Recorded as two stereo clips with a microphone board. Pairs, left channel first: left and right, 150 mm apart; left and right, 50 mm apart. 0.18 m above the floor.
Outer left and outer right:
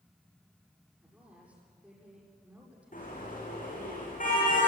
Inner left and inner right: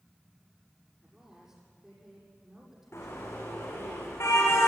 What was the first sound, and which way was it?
A woman speaking, 10° right (ahead or behind).